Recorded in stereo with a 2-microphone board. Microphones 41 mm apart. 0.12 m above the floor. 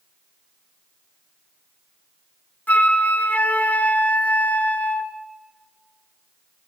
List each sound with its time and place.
2.7 s a flute: 45° left (ahead or behind), 1.0 m